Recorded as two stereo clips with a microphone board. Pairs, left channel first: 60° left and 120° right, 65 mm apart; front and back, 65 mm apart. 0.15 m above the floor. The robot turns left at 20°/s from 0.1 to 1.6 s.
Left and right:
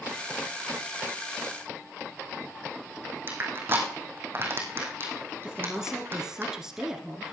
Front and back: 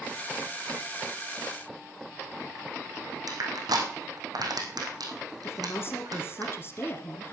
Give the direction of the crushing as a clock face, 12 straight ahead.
6 o'clock.